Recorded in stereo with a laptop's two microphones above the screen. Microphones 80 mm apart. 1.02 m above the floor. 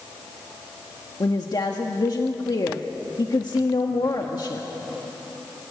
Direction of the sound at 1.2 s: 50° left (ahead or behind).